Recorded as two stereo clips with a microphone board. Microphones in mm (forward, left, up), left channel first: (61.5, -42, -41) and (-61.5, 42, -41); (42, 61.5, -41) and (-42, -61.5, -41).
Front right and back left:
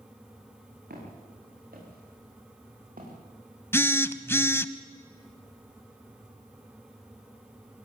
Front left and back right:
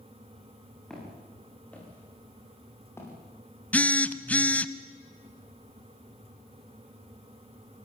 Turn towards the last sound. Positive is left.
turn(degrees=0)